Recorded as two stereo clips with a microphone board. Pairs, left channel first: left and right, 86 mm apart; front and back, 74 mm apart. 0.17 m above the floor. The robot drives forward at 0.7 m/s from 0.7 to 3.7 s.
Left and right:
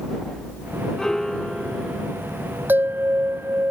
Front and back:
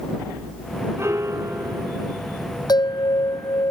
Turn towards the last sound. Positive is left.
turn(degrees=-25)